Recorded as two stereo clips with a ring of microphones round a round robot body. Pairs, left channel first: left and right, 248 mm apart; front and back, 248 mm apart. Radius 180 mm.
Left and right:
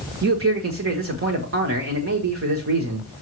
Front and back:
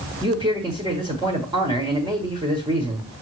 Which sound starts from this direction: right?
A man speaking, at 0.2 s.